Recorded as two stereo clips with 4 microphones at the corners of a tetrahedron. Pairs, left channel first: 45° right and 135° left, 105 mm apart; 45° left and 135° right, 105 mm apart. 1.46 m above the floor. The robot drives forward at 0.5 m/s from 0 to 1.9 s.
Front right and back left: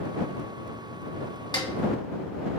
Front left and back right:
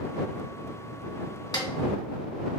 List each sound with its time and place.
1.5 s a snare drum: straight ahead, 1.4 m